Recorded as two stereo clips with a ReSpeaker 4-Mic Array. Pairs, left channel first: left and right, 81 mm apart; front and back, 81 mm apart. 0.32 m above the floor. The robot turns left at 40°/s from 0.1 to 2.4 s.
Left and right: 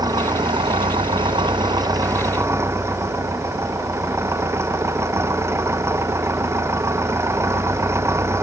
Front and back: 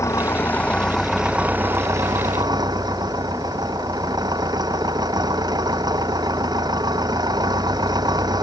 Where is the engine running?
55° right; by 8.4 s 145° right.